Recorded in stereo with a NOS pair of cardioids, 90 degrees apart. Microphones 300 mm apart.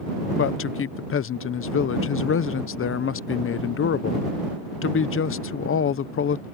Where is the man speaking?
45° left.